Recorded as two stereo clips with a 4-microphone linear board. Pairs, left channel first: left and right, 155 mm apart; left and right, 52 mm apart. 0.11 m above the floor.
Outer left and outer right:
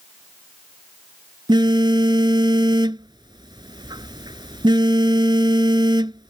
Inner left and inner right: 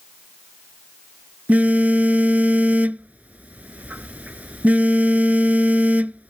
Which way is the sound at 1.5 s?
30° right (ahead or behind).